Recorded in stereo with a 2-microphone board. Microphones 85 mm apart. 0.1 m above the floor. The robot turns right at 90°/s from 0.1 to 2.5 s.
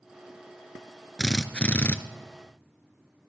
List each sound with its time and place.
1.2 s a drill: centre (ahead or behind), 0.7 m; by 2.0 s 25° left (ahead or behind), 0.7 m